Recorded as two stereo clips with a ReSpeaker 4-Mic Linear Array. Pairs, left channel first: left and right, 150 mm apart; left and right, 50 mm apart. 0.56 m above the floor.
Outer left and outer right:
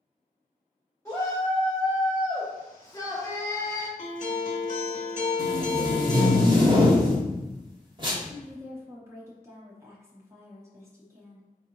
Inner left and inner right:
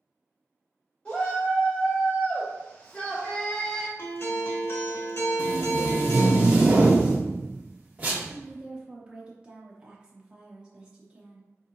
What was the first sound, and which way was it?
A shout, 20° left (ahead or behind).